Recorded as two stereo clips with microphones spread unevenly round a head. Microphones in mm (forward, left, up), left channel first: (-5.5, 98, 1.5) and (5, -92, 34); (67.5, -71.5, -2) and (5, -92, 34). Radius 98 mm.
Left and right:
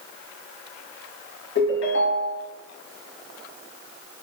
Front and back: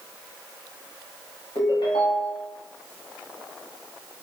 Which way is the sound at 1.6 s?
80° left.